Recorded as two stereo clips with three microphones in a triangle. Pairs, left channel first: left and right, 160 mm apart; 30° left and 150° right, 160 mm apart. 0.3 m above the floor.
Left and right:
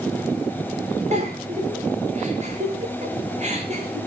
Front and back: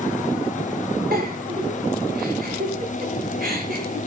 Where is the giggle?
130° right, 5.5 m.